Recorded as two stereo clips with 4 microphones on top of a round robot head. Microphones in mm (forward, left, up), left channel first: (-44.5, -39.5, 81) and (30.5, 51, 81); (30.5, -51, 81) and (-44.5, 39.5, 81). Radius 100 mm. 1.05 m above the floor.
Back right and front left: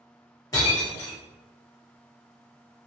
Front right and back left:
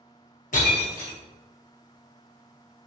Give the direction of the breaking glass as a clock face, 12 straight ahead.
2 o'clock.